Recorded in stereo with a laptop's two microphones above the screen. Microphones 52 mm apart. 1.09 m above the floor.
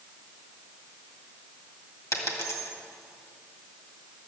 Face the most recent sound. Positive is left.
turn(degrees=65)  # may be behind; listen again after turning